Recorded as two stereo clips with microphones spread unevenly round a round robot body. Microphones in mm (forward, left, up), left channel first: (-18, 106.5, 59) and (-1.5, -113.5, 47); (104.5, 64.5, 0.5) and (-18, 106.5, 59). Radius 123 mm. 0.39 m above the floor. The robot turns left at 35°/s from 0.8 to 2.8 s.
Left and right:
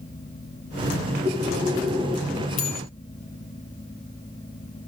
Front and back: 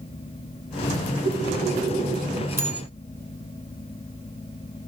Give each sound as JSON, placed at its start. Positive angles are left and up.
{"t": 1.2, "sound": "breathing", "azimuth_deg": -145, "distance_m": 5.0}
{"t": 2.6, "sound": "a bell", "azimuth_deg": 90, "distance_m": 4.5}